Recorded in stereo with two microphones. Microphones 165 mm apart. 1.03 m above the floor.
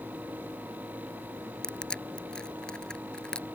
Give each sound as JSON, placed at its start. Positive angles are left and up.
{"t": 1.6, "sound": "crushing", "side_deg": 5}